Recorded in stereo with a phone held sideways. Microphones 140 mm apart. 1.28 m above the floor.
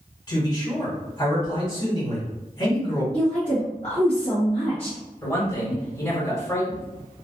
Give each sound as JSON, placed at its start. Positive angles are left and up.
{"t": 0.3, "sound": "a man speaking", "side_deg": 30, "distance_m": 1.5}
{"t": 3.1, "sound": "a woman speaking", "side_deg": 50, "distance_m": 1.0}
{"t": 5.2, "sound": "a man speaking", "side_deg": 20, "distance_m": 1.3}